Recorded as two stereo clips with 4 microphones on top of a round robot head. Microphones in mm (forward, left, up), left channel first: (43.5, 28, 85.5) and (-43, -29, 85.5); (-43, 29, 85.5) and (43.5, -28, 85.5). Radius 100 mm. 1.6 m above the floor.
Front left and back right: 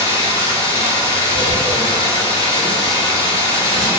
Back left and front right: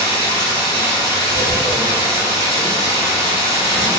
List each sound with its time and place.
0.0 s running water: 10° right, 0.9 m
1.3 s tearing paper: 115° right, 0.6 m